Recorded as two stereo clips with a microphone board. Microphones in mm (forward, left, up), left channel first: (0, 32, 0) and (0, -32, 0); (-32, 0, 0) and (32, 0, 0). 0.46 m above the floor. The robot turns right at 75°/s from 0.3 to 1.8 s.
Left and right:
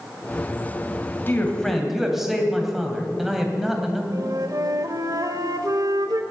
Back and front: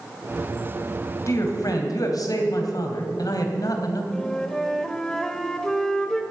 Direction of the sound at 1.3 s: 145° left.